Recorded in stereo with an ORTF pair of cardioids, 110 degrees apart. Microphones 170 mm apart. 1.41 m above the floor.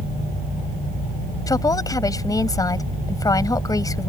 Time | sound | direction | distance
1.5 | a woman speaking | 20° left | ?